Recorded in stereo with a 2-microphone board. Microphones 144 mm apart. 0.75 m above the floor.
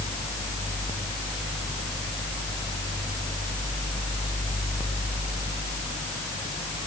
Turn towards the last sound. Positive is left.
No sound to turn to.